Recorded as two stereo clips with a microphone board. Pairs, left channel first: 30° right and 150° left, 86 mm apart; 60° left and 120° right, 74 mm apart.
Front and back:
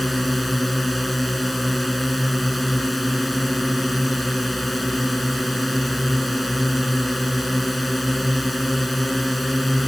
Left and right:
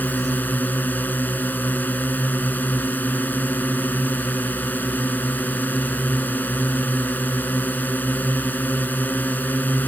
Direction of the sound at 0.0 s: 60° left.